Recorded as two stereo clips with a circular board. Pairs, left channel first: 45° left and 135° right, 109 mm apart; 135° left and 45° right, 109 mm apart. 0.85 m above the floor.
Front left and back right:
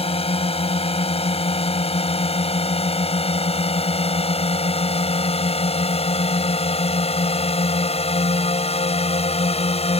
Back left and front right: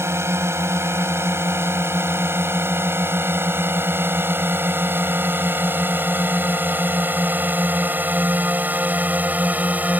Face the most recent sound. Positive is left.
turn(degrees=30)